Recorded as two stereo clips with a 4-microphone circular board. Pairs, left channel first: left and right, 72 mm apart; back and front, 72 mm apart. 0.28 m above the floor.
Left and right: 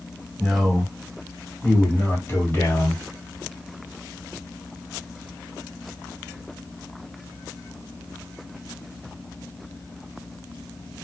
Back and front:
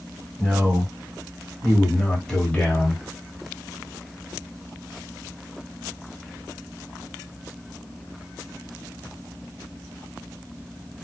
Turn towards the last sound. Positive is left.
turn(degrees=120)